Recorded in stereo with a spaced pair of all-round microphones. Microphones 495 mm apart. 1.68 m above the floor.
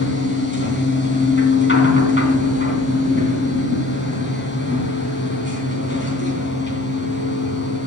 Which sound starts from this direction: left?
A machine running, at 0.0 s.